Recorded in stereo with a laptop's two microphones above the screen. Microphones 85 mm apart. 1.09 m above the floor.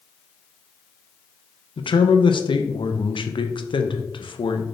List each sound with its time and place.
1.8 s a man speaking: 75° left (ahead or behind), 0.5 m